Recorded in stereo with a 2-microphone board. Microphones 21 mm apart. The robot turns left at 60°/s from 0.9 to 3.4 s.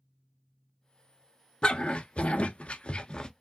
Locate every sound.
1.6 s a dog barking: 45° left (ahead or behind), 0.9 m; by 3.3 s 35° left (ahead or behind), 0.9 m